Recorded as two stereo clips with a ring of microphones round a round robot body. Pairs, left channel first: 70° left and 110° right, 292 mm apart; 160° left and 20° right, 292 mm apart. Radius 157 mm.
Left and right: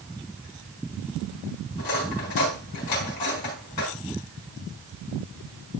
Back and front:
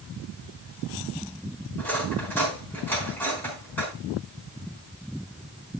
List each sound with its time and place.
1.8 s cutlery clinking: 75° left, 4.5 m